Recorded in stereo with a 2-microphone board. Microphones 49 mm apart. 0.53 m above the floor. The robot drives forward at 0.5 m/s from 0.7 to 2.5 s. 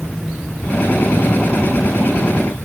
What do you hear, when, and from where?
Only background noise.